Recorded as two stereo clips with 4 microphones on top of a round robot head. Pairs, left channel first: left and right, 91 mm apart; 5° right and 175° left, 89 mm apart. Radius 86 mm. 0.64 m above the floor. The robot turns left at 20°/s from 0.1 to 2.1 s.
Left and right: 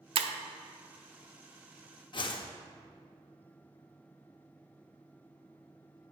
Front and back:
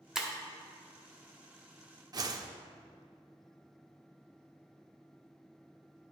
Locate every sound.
0.1 s breaking glass: 100° right, 0.6 m
2.1 s a whoosh: 130° left, 0.7 m